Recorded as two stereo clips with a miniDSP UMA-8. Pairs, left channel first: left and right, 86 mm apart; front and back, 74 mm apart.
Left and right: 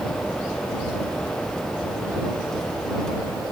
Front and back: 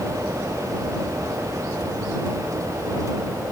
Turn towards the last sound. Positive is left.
No sound to turn to.